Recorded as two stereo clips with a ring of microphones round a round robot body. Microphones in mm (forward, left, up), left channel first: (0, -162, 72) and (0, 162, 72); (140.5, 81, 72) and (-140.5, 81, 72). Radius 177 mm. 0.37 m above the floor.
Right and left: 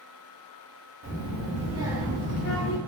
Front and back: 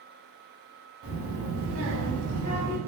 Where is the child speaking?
140° left, 1.1 m; by 2.8 s 100° right, 0.6 m.